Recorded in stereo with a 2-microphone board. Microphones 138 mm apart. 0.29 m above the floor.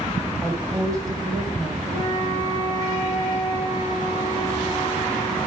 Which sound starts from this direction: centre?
A woman speaking, at 0.4 s.